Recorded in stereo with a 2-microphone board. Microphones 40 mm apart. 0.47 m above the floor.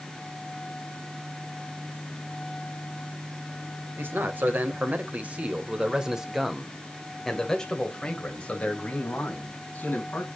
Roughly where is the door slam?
I don't hear a door slam.